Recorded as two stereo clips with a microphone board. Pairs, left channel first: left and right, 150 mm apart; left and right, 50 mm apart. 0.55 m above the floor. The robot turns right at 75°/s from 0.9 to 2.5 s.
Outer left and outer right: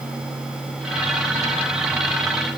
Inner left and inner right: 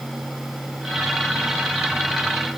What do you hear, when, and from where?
Only background noise.